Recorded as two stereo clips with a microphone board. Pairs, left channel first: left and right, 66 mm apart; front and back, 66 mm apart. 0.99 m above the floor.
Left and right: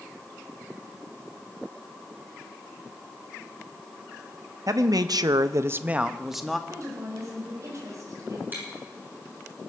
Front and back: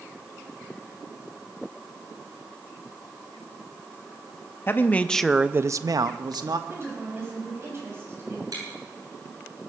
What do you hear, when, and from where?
4.7 s a man speaking: 60° right, 1.1 m; by 6.6 s straight behind, 1.4 m
6.7 s a woman speaking: 130° right, 6.5 m
8.5 s chewing: 150° right, 7 m